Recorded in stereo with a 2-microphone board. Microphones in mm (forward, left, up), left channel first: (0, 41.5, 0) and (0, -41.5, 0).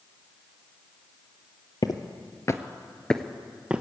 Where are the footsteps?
55° left (ahead or behind), 1.0 m; by 3.8 s 15° right (ahead or behind), 0.9 m.